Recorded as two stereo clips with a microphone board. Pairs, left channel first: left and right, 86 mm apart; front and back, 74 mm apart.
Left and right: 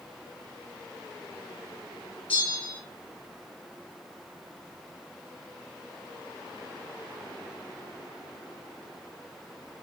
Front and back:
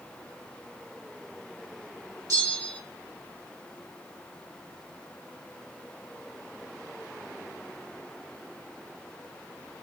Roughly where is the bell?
Behind.